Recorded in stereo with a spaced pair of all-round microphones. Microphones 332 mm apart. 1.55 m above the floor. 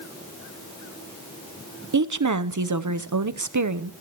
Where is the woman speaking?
60° right (ahead or behind), 0.7 m.